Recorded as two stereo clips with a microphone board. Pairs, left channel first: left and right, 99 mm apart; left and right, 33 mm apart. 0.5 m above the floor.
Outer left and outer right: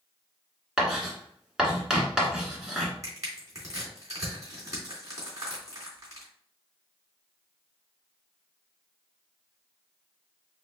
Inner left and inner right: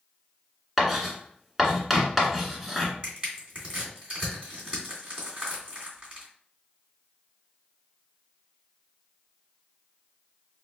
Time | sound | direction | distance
0.8 | writing | 5° right (ahead or behind) | 1.7 m
3.0 | crushing | 35° right (ahead or behind) | 2.5 m